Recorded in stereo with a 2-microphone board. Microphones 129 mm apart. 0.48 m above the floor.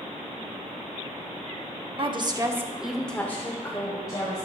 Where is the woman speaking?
45° right (ahead or behind), 1.0 m; by 4.5 s 30° left (ahead or behind), 2 m.